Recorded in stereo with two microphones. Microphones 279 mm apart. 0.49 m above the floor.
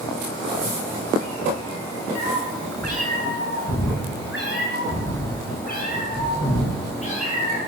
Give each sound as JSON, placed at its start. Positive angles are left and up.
{"t": 2.1, "sound": "a cat meowing", "side_deg": 80, "distance_m": 2.5}